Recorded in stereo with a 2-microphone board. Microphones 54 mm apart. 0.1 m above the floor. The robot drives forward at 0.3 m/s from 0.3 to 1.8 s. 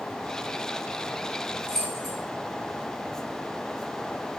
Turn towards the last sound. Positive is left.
turn(degrees=10)  # may be behind; listen again after turning